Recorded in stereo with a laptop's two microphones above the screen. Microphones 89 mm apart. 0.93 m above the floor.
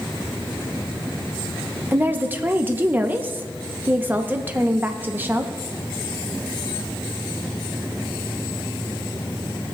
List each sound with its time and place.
1.9 s a woman speaking: 20° right (ahead or behind), 0.7 m